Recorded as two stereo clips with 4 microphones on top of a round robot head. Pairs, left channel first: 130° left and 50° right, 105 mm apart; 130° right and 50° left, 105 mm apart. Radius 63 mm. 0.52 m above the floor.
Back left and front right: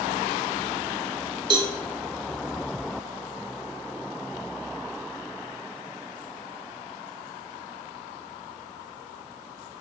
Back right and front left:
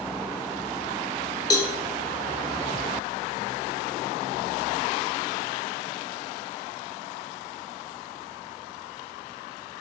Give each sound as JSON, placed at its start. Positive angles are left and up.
{"t": 1.5, "sound": "a cowbell", "azimuth_deg": -85, "distance_m": 0.9}